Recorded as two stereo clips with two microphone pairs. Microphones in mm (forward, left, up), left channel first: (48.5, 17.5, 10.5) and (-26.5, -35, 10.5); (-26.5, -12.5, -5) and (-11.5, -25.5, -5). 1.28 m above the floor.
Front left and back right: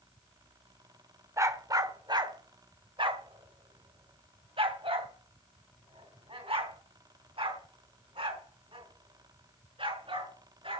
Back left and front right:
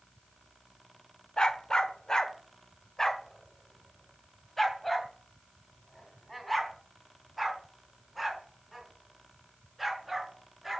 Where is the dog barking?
165° left, 1.3 m; by 10.8 s 125° right, 6.5 m.